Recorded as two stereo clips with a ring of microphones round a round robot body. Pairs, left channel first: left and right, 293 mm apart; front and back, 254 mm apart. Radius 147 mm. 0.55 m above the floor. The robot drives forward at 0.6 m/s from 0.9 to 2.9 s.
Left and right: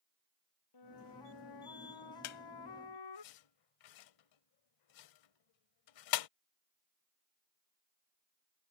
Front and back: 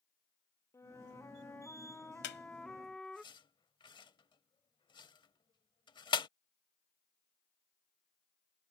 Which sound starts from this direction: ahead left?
A squeak, at 2.2 s.